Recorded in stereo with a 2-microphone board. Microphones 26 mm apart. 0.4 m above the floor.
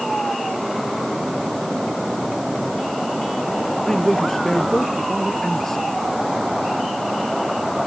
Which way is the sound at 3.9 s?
15° left (ahead or behind).